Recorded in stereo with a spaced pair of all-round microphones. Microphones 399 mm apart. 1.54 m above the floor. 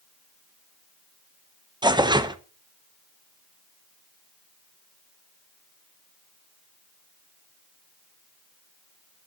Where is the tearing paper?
10° right (ahead or behind), 1.1 m.